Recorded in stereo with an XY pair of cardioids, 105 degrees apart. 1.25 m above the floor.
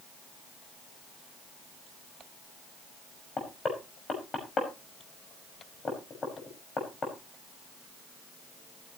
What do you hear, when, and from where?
3.4 s knocking: 40° left, 5.5 m